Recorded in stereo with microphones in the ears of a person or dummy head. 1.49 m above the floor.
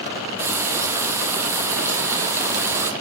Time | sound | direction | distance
0.4 | frying | 15° right (ahead or behind) | 1.4 m